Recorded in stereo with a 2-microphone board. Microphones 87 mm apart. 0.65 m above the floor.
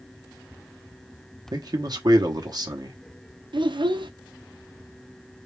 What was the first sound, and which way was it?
A man speaking, 50° right (ahead or behind).